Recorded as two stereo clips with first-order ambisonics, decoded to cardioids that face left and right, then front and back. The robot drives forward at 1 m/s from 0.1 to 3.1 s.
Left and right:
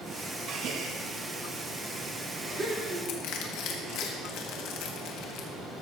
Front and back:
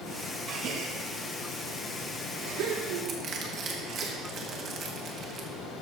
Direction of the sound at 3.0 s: 120° left.